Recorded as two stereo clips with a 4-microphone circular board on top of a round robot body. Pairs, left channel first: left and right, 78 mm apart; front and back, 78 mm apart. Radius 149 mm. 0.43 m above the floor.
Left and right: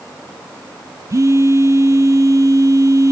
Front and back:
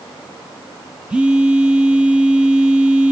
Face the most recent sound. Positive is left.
turn(degrees=-110)